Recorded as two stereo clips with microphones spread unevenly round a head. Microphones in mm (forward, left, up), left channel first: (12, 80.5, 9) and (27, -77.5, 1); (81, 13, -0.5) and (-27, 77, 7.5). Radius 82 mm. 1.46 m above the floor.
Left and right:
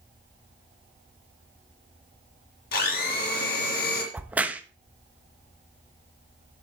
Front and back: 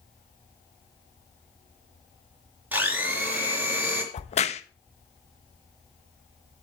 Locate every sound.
2.7 s a blender: 75° left, 3.5 m
4.1 s a crack: straight ahead, 1.1 m